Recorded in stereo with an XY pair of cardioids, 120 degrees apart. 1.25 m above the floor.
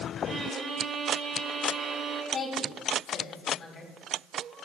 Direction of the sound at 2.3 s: 50° left.